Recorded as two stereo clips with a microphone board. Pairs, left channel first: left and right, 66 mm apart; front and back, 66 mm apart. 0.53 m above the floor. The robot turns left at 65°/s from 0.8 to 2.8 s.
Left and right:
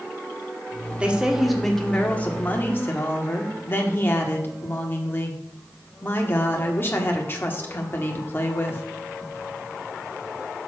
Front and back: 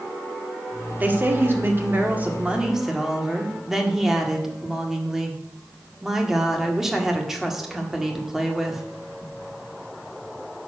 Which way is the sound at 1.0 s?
145° right.